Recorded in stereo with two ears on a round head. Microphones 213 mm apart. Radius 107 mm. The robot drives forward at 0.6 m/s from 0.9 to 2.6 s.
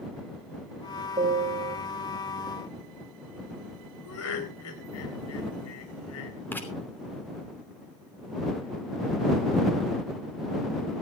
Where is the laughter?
70° left (ahead or behind), 4 m.